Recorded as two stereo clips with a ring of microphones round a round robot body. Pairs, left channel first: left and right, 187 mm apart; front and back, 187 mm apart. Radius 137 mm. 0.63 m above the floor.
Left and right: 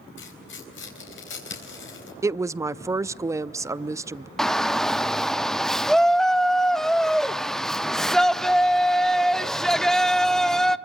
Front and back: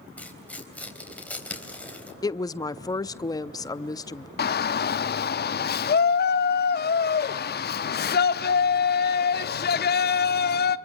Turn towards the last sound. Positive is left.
turn(degrees=0)